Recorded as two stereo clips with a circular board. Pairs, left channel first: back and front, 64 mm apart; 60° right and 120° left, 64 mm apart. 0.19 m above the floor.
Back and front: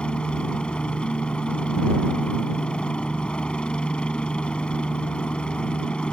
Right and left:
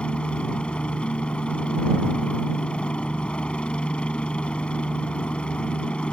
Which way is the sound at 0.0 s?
120° right.